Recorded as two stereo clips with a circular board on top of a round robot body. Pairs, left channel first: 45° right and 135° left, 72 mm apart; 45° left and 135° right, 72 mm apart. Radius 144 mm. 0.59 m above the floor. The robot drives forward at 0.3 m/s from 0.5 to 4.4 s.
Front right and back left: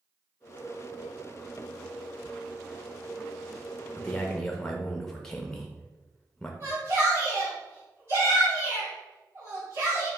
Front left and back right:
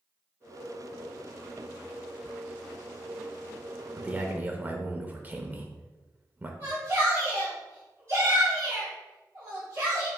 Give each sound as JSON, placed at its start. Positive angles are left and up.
{"t": 4.0, "sound": "a man speaking", "azimuth_deg": -85, "distance_m": 0.7}
{"t": 6.6, "sound": "a shout", "azimuth_deg": 180, "distance_m": 1.8}